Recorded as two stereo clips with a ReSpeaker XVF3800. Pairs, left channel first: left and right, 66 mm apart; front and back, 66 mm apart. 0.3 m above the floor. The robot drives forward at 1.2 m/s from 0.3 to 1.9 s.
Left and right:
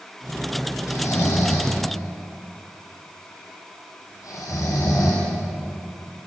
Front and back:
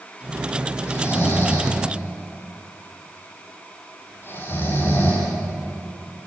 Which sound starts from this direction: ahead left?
Snoring, at 0.9 s.